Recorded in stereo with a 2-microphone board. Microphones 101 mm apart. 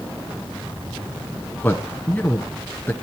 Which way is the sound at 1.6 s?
15° left (ahead or behind).